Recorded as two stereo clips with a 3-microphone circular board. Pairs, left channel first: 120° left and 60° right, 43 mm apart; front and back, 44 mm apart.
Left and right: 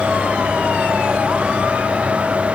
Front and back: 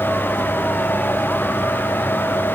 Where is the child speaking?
No child speaking in this recording.